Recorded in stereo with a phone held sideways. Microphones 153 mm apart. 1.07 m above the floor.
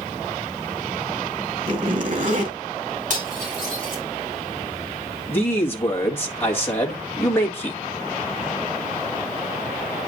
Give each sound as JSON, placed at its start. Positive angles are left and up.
{"t": 1.7, "sound": "a zipper", "side_deg": -60, "distance_m": 2.5}
{"t": 3.1, "sound": "cutlery clinking", "side_deg": -55, "distance_m": 4.5}
{"t": 5.3, "sound": "a man speaking", "side_deg": 15, "distance_m": 1.6}